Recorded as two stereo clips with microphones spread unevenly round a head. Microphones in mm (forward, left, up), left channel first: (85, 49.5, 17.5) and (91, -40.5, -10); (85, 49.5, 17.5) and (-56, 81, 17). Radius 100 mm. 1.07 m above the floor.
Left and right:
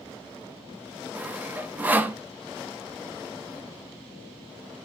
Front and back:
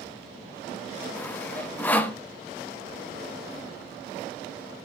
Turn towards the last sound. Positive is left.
turn(degrees=-85)